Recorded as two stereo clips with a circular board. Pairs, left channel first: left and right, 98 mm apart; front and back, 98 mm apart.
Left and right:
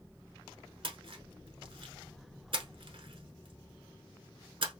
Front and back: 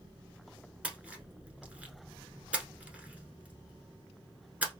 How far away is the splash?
About 0.9 m.